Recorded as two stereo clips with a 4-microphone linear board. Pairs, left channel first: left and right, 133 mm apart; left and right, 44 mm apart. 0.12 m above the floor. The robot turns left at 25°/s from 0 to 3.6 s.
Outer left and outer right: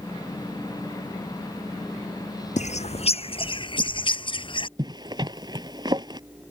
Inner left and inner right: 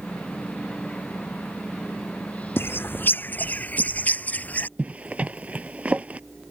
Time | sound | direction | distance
2.6 | a bird | 65° left (ahead or behind) | ?
4.8 | a zipper | 35° right (ahead or behind) | ?